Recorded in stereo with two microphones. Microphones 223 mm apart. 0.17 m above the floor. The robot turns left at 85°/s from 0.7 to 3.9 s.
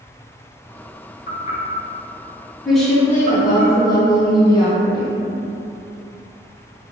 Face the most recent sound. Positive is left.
turn(degrees=20)  # may be behind; listen again after turning